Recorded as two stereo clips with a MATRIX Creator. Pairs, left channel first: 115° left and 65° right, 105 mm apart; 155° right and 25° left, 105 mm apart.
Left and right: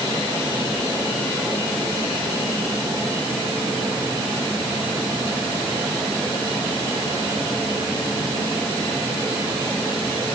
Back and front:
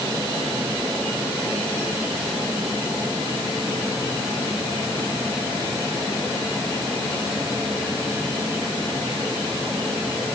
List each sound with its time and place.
Only background noise.